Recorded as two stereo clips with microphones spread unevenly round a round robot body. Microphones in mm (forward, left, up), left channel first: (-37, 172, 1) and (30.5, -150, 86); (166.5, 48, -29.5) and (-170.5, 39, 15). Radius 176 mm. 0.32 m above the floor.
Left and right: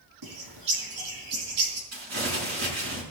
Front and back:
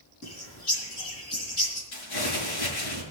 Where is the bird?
45° right, 4 m.